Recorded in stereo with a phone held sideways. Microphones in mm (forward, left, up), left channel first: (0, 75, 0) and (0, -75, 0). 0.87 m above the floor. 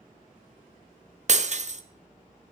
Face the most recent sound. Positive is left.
turn(degrees=-50)  # may be behind; listen again after turning